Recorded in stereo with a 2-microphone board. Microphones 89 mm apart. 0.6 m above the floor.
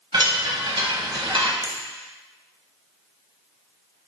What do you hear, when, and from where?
0.1 s a chime: 70° right (ahead or behind), 0.7 m
1.6 s a finger snap: 50° right (ahead or behind), 0.7 m